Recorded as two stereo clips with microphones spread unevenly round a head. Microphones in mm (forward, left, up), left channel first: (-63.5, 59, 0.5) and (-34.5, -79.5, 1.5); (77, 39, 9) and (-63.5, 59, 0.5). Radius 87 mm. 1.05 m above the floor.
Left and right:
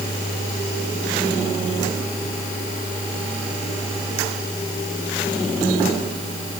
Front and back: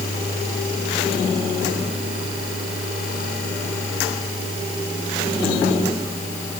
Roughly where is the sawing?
I don't hear sawing.